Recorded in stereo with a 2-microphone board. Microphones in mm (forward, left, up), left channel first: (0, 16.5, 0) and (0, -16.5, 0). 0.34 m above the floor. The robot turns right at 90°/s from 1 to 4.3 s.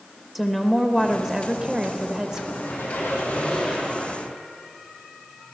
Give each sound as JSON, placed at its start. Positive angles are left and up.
{"t": 0.3, "sound": "a woman speaking", "side_deg": 0, "distance_m": 1.2}
{"t": 2.6, "sound": "a squeak", "azimuth_deg": 60, "distance_m": 5.5}